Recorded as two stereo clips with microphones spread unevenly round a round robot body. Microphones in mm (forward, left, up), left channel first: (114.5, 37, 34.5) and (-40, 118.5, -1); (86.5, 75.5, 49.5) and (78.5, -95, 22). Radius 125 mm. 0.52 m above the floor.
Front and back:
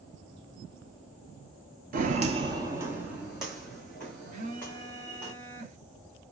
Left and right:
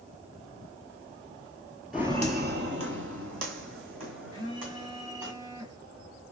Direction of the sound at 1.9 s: 165° left.